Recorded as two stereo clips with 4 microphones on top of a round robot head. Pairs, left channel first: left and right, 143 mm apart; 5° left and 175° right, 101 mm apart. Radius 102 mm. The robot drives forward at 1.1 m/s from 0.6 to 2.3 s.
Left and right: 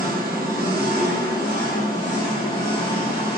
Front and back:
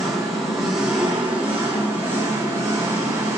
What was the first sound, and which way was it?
An engine running, 80° right.